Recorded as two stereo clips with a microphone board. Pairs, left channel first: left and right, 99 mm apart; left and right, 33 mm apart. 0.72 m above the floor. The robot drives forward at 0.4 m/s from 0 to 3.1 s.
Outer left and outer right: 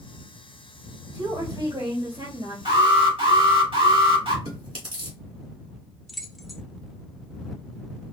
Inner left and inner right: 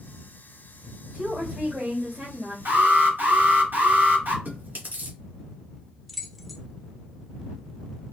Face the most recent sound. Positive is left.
turn(degrees=0)  # may be behind; listen again after turning